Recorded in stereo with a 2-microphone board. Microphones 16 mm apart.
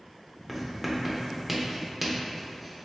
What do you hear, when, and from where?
0.5 s writing: 5° right (ahead or behind), 0.5 m